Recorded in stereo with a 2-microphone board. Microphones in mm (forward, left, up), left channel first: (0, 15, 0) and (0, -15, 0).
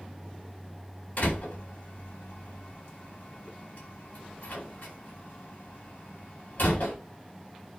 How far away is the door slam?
About 8.5 m.